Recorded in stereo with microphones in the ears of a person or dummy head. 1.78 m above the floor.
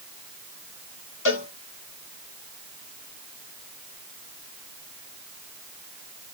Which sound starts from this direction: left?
A cowbell, at 1.2 s.